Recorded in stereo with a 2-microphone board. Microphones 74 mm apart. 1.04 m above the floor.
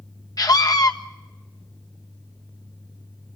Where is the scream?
55° left (ahead or behind), 1.4 m.